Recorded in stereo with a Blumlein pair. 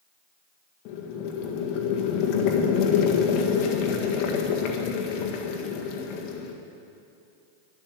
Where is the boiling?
40° left, 1.6 m.